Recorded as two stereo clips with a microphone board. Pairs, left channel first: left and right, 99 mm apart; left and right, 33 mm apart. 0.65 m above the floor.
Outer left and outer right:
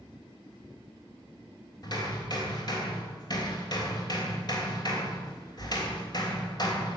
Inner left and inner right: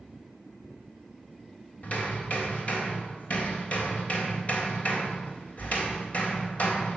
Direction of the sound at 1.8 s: 45° left (ahead or behind).